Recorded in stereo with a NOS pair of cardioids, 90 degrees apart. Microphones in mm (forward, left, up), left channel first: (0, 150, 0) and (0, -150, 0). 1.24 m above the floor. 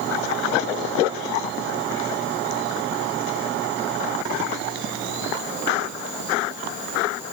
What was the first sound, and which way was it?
Only background noise.